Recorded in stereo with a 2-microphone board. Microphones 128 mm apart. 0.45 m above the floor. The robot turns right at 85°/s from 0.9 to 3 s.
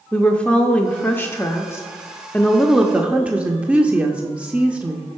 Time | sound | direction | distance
0.1 | a woman speaking | 10° left (ahead or behind) | 0.7 m